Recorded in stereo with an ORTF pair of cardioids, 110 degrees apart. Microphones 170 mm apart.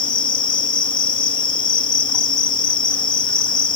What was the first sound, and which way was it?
An insect, 30° left.